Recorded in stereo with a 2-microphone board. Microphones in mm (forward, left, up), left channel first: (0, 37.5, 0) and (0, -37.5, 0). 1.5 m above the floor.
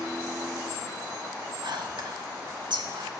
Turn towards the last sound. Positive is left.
turn(degrees=-85)